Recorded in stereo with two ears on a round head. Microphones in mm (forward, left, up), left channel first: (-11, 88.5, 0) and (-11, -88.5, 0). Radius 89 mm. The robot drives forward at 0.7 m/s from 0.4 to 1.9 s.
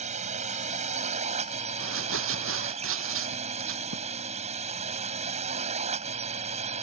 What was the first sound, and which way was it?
A drone, 40° right (ahead or behind).